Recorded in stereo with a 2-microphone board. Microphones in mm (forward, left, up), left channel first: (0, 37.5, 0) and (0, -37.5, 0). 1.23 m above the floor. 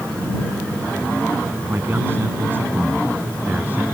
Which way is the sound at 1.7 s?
30° right (ahead or behind).